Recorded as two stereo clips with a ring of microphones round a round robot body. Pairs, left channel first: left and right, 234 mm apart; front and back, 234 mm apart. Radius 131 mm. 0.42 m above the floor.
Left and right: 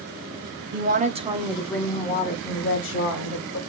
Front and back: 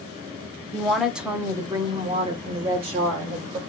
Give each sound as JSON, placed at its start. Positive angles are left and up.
{"t": 0.7, "sound": "a woman speaking", "azimuth_deg": -85, "distance_m": 1.2}